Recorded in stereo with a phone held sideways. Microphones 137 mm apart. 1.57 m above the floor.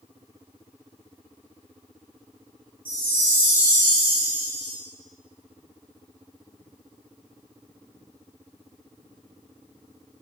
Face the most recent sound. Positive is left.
turn(degrees=-15)  # may be behind; listen again after turning